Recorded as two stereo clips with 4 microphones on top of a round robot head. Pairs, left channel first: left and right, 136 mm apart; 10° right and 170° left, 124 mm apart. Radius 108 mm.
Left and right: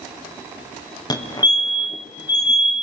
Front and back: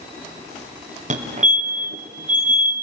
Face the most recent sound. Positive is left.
turn(degrees=150)